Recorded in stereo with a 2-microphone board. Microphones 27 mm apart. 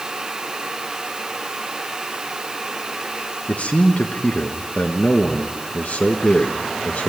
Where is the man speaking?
60° left (ahead or behind), 1.3 m.